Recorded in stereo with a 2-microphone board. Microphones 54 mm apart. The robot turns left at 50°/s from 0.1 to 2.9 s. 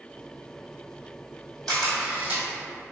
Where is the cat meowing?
I don't hear a cat meowing.